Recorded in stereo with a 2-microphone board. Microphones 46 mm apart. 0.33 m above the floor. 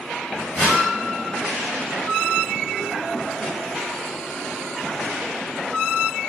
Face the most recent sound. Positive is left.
turn(degrees=25)  # may be behind; listen again after turning